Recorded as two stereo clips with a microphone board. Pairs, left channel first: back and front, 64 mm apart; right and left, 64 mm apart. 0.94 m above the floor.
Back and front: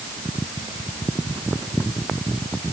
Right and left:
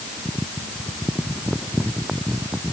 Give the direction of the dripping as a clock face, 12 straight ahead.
No dripping in this recording.